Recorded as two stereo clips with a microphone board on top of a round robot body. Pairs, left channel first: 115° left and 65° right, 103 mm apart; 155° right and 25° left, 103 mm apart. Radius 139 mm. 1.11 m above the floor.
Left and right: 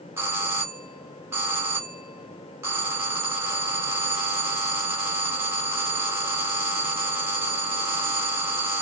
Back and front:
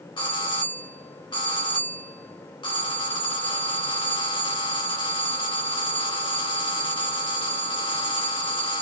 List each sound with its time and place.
0.2 s a doorbell: 130° right, 1.8 m